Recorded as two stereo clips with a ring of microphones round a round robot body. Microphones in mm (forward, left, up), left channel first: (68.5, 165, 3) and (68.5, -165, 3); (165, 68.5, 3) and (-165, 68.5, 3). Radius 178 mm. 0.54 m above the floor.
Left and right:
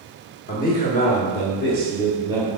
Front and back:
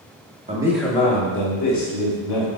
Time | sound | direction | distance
0.5 | a man speaking | 130° left | 0.9 m